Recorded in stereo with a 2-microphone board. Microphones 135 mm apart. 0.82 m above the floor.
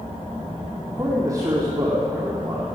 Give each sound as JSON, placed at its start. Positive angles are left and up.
{"t": 0.9, "sound": "a man speaking", "side_deg": -30, "distance_m": 2.5}